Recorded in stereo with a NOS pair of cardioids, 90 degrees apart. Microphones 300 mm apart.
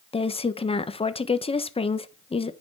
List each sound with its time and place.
0.1 s a woman speaking: 20° left, 1.1 m